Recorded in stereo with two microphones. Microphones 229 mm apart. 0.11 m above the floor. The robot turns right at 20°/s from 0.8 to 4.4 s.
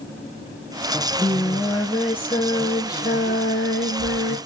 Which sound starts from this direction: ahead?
Singing, at 0.9 s.